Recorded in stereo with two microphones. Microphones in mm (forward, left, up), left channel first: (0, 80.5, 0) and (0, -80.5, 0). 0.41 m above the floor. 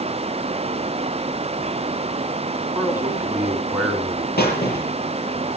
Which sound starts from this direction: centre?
A man speaking, at 2.8 s.